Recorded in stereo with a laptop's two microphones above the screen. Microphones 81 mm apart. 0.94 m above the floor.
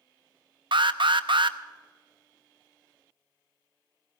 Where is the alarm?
80° right, 0.7 m.